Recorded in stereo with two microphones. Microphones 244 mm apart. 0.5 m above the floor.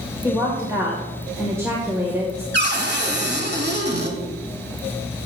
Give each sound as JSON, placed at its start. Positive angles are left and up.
{"t": 0.2, "sound": "a woman speaking", "side_deg": -10, "distance_m": 1.7}
{"t": 2.5, "sound": "a cupboard door", "side_deg": -45, "distance_m": 1.7}